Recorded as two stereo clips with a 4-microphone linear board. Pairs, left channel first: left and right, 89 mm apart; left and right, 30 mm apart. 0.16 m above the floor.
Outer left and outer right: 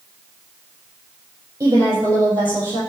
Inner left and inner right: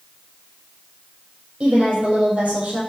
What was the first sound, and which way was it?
A woman speaking, 45° right (ahead or behind).